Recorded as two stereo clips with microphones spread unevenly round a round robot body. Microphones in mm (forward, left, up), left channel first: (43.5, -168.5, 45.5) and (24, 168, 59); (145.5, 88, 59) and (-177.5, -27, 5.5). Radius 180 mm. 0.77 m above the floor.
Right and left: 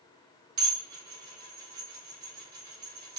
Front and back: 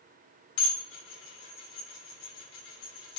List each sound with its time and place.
0.6 s dishes clattering: 50° left, 2.5 m